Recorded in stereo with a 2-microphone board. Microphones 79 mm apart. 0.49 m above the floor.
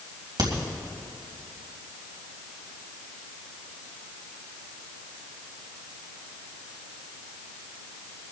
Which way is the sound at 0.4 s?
70° right (ahead or behind).